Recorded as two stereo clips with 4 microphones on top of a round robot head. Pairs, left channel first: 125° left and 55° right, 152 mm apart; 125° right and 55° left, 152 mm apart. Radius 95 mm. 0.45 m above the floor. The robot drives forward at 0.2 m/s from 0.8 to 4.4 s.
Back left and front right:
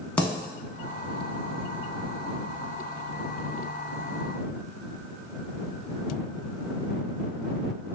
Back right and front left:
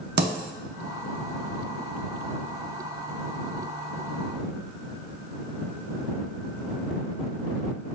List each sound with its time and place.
0.2 s a dropped coin: 40° left, 0.6 m